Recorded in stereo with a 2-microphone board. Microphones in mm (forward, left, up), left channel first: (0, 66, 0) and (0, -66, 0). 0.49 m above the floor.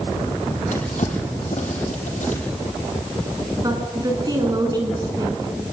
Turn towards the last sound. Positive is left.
turn(degrees=-30)  # may be behind; listen again after turning